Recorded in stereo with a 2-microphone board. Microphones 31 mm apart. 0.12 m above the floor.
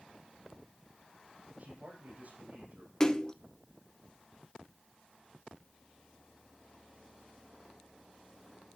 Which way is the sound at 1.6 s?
60° right (ahead or behind).